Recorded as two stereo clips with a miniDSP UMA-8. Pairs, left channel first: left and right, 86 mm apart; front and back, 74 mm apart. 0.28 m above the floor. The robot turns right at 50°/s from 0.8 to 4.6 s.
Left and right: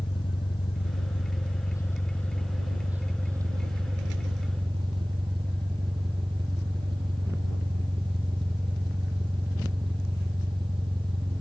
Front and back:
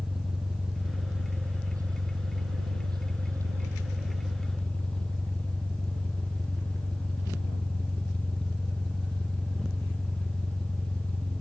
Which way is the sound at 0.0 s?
90° left.